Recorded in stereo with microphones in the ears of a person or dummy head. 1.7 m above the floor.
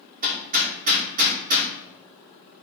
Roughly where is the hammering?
Right.